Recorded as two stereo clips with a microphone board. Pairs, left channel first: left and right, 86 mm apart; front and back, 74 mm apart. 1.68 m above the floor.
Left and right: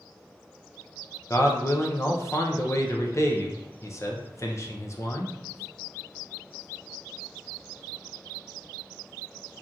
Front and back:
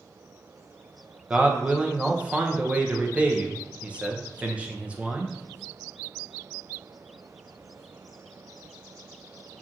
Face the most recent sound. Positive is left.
turn(degrees=115)